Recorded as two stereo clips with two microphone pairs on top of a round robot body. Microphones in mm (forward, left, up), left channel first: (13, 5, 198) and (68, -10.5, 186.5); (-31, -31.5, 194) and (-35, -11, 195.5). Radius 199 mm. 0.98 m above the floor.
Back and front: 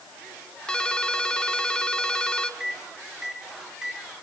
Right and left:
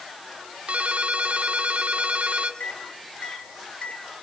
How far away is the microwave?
About 4.5 m.